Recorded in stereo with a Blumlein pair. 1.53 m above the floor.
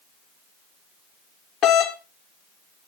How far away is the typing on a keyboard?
No typing on a keyboard in this recording.